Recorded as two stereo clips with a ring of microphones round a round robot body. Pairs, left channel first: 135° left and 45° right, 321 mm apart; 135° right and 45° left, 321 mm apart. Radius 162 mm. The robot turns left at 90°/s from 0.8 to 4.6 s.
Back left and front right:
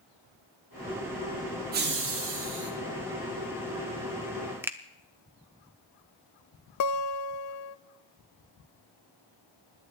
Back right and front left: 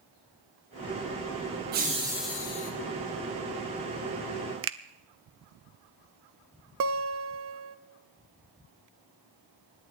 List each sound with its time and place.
1.7 s laughter: straight ahead, 0.9 m; by 2.7 s 85° right, 0.9 m
4.6 s a finger snap: 35° left, 0.7 m
6.8 s a guitar: 95° left, 0.6 m